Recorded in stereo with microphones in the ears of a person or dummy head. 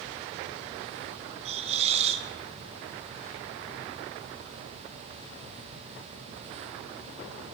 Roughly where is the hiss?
Right.